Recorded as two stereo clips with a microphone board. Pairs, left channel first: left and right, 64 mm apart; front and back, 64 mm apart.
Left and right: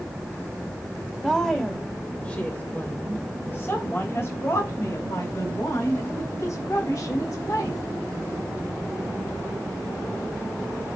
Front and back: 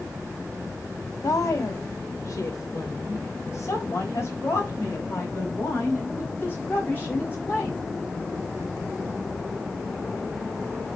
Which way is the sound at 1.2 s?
5° left.